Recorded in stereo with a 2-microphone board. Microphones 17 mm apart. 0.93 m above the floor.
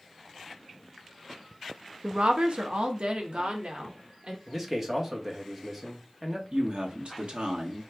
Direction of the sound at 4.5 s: 25° right (ahead or behind).